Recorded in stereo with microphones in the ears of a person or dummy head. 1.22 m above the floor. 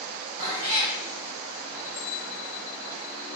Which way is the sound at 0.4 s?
45° right (ahead or behind).